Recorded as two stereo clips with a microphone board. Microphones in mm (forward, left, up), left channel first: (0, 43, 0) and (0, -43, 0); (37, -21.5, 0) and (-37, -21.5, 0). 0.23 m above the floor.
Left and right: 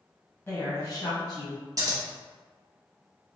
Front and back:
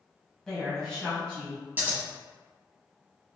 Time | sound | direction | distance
0.5 | a woman speaking | 80° left | 1.1 m
1.8 | scissors | 120° right | 0.8 m